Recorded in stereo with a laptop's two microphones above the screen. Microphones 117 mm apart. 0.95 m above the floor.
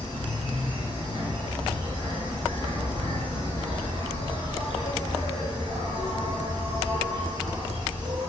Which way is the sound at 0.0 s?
45° left (ahead or behind).